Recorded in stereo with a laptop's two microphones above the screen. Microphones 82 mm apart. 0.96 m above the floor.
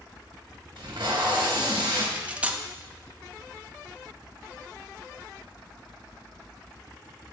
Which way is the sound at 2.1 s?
15° right (ahead or behind).